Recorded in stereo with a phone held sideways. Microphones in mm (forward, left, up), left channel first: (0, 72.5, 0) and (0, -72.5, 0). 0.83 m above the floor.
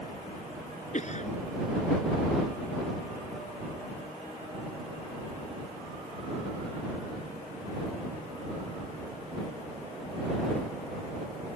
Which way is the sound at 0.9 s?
55° left (ahead or behind).